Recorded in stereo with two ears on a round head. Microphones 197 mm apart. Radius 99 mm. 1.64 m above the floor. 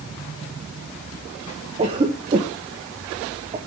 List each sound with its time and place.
1.8 s a cough: 25° right (ahead or behind), 1.0 m